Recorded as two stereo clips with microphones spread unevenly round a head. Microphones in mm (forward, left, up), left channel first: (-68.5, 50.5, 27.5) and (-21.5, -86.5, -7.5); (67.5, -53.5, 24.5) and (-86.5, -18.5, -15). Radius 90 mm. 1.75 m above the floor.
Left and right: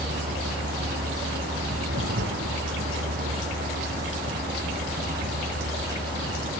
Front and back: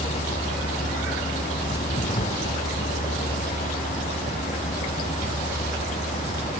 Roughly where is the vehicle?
Ahead right.